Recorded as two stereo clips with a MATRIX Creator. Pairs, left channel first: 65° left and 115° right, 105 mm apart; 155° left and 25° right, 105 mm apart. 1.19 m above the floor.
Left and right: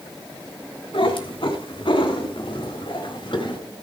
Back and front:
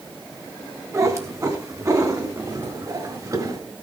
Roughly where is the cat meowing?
Ahead left.